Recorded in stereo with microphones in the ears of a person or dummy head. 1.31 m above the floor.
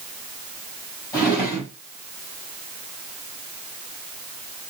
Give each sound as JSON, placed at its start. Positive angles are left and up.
{"t": 1.1, "sound": "a drawer", "side_deg": 20, "distance_m": 2.5}